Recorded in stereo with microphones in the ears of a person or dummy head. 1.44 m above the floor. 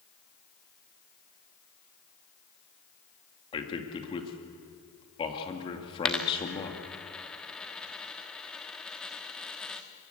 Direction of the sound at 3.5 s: 25° left (ahead or behind).